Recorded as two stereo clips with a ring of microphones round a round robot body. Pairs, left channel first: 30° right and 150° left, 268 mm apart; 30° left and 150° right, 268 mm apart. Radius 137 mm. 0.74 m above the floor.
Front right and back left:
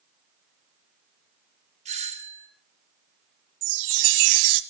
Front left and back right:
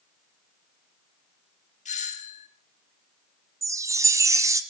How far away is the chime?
About 1.5 m.